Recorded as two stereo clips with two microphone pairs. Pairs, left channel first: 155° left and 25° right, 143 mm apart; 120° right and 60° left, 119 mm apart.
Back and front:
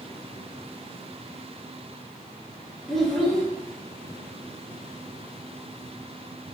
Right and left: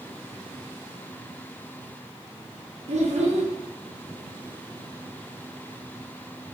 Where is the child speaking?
70° left, 0.8 m.